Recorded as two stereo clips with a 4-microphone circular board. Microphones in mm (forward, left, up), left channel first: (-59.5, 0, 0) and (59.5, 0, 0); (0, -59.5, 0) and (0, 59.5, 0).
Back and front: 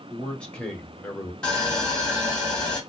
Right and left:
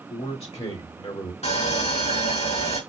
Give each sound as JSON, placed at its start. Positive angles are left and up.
{"t": 0.1, "sound": "a man speaking", "azimuth_deg": -95, "distance_m": 1.8}
{"t": 1.4, "sound": "sawing", "azimuth_deg": -95, "distance_m": 2.5}